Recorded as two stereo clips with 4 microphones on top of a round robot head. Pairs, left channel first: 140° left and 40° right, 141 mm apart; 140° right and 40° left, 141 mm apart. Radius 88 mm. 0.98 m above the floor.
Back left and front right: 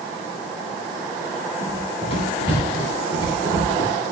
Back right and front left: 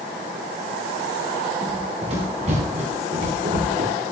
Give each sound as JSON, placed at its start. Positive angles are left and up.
{"t": 1.6, "sound": "running footsteps", "azimuth_deg": 90, "distance_m": 8.5}